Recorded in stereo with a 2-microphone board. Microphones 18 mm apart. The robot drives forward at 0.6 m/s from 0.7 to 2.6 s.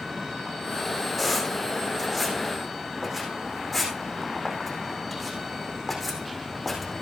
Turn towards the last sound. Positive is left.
turn(degrees=-5)  # may be behind; listen again after turning